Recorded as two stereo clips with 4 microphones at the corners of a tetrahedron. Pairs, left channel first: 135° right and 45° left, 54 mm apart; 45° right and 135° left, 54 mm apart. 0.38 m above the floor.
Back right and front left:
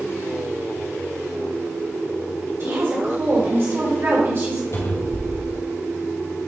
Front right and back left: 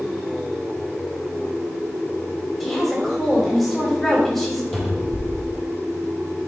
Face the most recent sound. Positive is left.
turn(degrees=-135)